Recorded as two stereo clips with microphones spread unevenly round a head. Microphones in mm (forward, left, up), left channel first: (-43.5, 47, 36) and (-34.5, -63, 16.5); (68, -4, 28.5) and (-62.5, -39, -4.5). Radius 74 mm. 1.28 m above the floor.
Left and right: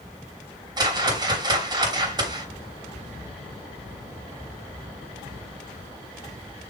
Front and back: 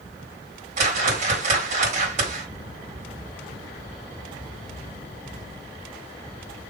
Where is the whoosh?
135° right, 2.5 m.